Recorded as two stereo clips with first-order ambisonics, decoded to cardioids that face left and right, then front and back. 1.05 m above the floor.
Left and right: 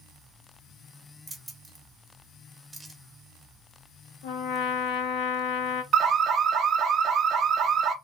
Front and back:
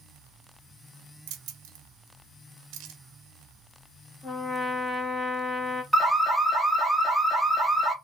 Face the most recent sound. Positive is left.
turn(degrees=-90)